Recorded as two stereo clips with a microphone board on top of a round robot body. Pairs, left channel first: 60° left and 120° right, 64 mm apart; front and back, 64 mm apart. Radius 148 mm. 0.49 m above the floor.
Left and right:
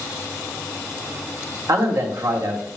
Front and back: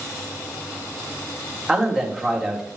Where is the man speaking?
95° right, 2 m.